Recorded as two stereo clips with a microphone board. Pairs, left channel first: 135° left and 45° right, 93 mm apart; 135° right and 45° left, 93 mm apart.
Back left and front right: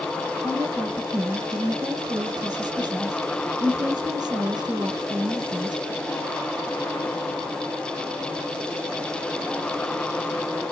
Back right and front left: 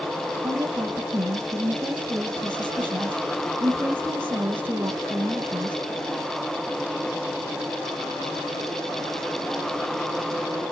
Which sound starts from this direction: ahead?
A woman speaking, at 0.4 s.